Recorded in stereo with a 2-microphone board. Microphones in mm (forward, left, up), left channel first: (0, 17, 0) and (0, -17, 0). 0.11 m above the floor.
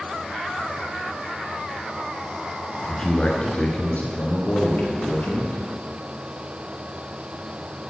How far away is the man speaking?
About 1.2 m.